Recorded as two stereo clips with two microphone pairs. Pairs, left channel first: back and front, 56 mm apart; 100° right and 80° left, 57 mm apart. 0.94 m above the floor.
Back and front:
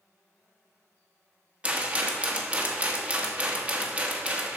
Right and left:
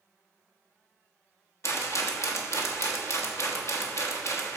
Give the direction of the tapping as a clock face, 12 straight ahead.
No tapping in this recording.